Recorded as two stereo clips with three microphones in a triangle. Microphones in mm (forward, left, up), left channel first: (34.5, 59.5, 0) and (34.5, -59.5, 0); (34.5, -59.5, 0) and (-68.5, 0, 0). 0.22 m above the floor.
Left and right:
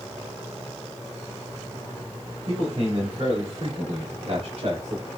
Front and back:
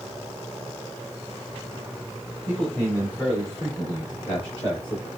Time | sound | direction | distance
2.5 | a man speaking | 100° right | 2.5 m